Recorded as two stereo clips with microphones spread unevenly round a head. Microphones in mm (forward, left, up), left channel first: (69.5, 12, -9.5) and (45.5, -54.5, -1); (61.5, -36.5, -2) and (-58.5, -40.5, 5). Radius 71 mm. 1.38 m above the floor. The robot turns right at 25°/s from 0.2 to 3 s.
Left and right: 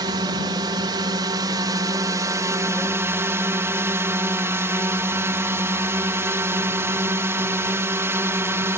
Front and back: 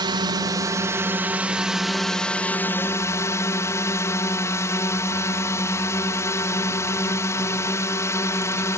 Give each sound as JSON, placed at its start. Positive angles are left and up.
{"t": 0.0, "sound": "a drone", "azimuth_deg": -130}